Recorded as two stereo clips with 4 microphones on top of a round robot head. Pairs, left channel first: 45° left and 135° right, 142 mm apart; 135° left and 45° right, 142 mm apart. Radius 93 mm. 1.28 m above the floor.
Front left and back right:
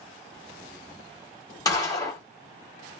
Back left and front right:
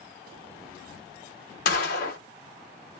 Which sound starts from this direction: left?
A gunshot, at 1.6 s.